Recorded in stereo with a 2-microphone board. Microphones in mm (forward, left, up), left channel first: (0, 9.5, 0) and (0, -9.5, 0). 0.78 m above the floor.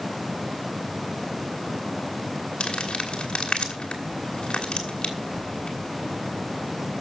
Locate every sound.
2.6 s crumpling: 65° left (ahead or behind), 2.5 m